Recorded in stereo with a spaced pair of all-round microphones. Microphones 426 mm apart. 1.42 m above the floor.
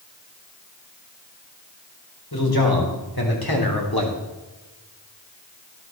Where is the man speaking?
60° left (ahead or behind), 4.5 m.